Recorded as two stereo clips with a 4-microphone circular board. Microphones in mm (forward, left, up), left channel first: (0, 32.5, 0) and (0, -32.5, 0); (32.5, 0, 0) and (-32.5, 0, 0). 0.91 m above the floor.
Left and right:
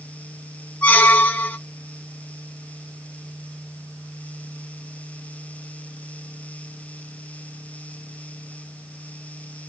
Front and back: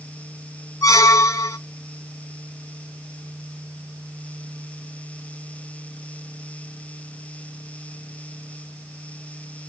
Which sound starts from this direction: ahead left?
A squeak, at 0.8 s.